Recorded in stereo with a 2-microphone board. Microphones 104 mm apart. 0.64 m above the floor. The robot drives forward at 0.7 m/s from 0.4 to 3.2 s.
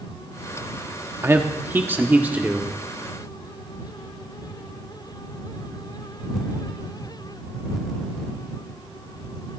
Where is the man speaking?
25° right (ahead or behind), 0.9 m; by 2.7 s 15° right (ahead or behind), 1.7 m.